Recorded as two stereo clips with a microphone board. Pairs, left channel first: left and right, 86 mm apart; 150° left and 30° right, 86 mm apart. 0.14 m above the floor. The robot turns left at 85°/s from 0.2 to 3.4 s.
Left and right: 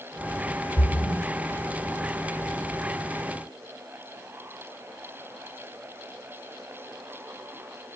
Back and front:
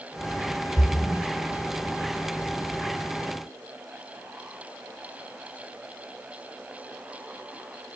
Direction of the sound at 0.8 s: 120° left.